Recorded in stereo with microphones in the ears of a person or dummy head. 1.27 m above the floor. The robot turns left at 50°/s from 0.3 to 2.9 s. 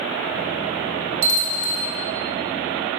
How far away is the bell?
About 1.7 m.